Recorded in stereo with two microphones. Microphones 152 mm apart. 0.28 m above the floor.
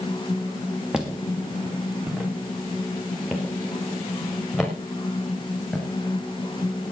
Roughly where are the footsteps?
Centre.